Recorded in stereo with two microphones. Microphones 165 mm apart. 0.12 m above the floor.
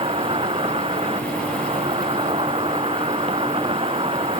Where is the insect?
35° right (ahead or behind).